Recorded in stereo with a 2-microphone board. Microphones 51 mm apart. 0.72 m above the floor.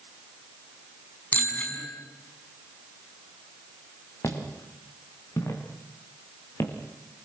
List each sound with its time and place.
1.3 s a bicycle bell: 30° left (ahead or behind), 5 m
4.2 s footsteps: 65° left (ahead or behind), 6 m; by 6.7 s 60° left (ahead or behind), 4.5 m